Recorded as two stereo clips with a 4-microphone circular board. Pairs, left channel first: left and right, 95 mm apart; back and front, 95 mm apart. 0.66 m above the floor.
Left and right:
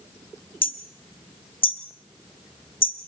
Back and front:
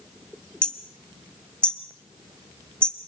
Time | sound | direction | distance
0.6 | hammering | 100° left | 1.8 m